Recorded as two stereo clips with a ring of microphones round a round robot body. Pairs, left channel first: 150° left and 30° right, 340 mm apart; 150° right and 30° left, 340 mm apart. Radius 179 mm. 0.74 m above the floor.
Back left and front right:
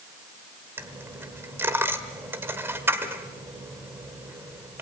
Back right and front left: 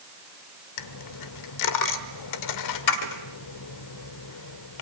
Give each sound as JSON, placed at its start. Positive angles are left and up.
{"t": 0.8, "sound": "a dropped coin", "azimuth_deg": -115, "distance_m": 1.2}